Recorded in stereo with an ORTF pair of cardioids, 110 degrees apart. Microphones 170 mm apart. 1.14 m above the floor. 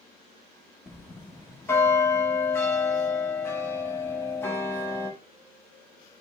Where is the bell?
15° left, 1.3 m.